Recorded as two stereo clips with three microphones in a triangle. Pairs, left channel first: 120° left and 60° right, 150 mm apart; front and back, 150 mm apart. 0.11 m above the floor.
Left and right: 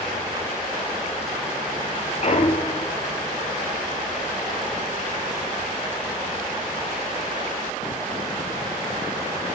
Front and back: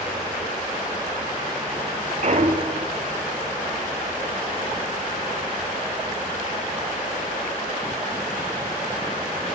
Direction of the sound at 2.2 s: 150° left.